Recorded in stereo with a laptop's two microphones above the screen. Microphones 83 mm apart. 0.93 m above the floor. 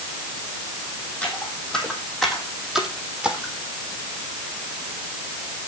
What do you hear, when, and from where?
1.2 s footsteps: 15° left (ahead or behind), 2.5 m; by 3.5 s 10° right (ahead or behind), 2.5 m